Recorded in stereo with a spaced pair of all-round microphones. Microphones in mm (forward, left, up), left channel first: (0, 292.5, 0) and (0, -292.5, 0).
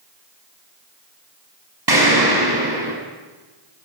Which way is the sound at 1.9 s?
40° right (ahead or behind).